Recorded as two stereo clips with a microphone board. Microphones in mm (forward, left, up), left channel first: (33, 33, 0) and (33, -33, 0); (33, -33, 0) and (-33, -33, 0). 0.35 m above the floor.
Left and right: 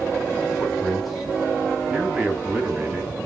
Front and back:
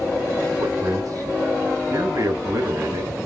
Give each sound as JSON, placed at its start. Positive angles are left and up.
{"t": 0.6, "sound": "a man speaking", "azimuth_deg": 170, "distance_m": 2.5}